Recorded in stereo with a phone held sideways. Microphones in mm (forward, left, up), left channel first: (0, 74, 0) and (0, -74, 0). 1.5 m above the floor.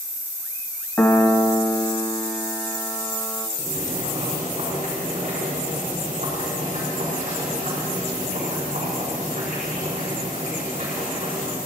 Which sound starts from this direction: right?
Boiling, at 3.6 s.